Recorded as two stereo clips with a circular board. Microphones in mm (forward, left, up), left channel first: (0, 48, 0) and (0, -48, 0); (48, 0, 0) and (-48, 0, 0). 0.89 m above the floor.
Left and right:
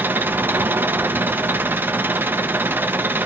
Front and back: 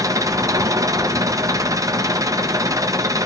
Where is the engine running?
150° right, 0.8 m.